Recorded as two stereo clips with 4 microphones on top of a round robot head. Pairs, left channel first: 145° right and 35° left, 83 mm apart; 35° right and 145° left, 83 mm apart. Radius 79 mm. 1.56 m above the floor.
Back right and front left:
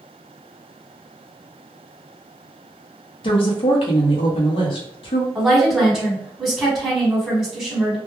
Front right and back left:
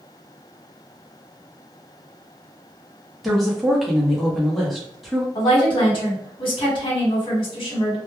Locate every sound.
3.2 s a woman speaking: 125° right, 0.8 m
5.3 s a woman speaking: 55° right, 1.3 m